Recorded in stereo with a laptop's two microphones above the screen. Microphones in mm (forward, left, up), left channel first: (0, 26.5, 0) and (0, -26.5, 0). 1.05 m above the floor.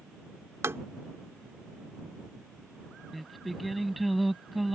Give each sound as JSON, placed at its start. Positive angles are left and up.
{"t": 0.6, "sound": "tapping", "side_deg": -60}
{"t": 3.1, "sound": "singing", "side_deg": 0}